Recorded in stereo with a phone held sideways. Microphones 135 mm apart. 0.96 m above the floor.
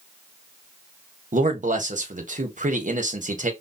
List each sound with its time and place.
1.3 s a man speaking: 65° right (ahead or behind), 1.0 m